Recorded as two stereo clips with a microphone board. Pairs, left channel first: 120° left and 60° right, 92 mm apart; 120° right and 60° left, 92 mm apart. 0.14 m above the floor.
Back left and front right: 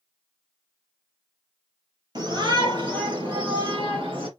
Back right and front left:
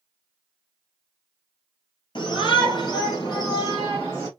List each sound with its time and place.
2.1 s a shout: 95° right, 3 m; by 4.3 s 70° right, 3.5 m